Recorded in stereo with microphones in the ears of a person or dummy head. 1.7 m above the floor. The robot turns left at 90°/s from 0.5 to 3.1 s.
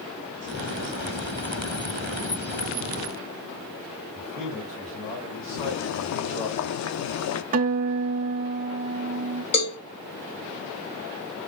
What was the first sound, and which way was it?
A man speaking, 30° left (ahead or behind).